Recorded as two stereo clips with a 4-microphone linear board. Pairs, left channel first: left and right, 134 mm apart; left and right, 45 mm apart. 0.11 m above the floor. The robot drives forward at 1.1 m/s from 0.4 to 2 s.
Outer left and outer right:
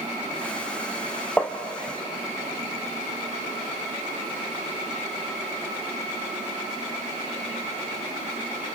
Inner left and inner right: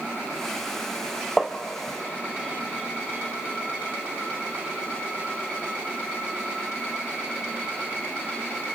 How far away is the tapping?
About 1.3 m.